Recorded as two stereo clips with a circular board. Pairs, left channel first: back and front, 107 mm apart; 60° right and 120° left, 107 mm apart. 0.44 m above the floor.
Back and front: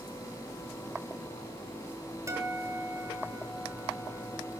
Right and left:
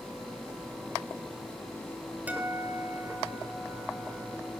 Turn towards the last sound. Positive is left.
turn(degrees=50)